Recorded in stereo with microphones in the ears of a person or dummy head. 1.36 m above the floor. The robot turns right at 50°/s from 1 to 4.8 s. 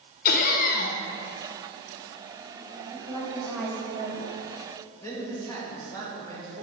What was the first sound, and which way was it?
Laughter, 55° left (ahead or behind).